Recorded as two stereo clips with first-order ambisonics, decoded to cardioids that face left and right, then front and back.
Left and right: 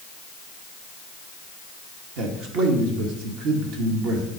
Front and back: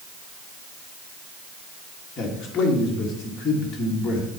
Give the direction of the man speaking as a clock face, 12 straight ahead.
2 o'clock.